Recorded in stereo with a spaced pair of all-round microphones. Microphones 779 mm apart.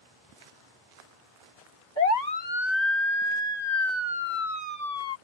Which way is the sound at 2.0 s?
55° left (ahead or behind).